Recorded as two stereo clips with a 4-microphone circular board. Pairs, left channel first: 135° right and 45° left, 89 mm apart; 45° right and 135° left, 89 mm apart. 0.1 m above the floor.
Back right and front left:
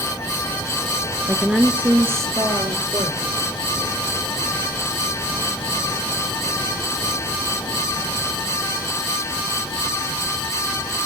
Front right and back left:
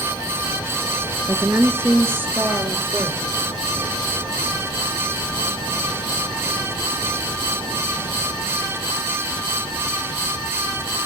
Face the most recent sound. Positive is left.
turn(degrees=55)